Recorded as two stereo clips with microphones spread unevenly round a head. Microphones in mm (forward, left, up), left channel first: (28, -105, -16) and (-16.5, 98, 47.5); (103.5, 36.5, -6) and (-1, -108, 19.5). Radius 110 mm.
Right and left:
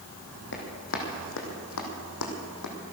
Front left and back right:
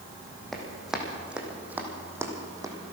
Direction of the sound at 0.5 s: 35° right.